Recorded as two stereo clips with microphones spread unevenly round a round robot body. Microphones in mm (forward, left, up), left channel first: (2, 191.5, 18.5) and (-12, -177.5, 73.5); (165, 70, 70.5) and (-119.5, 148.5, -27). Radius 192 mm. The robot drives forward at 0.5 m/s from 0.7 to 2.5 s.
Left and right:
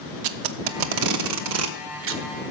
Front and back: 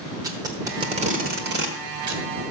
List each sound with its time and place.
0.2 s tape being pulled: 125° right, 0.8 m; by 2.5 s 155° right, 1.5 m